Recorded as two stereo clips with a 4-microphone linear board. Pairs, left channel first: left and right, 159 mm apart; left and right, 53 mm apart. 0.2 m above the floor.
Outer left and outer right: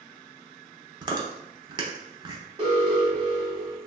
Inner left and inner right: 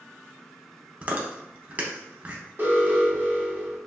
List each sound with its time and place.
1.0 s chewing: 30° right (ahead or behind), 0.6 m
2.6 s an alarm: 40° right (ahead or behind), 1.3 m